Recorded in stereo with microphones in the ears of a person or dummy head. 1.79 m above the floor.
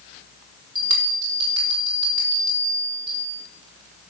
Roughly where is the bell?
Centre.